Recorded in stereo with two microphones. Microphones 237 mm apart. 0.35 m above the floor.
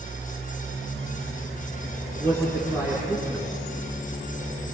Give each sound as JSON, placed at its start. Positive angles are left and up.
{"t": 2.2, "sound": "a man speaking", "side_deg": -10, "distance_m": 4.0}